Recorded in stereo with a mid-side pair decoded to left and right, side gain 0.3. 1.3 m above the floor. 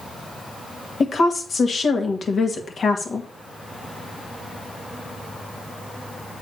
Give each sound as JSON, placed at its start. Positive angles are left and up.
{"t": 1.0, "sound": "a woman speaking", "azimuth_deg": 60, "distance_m": 2.0}